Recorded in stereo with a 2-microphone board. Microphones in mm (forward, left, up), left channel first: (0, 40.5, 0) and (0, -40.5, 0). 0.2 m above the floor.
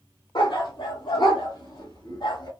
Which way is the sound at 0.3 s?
80° left.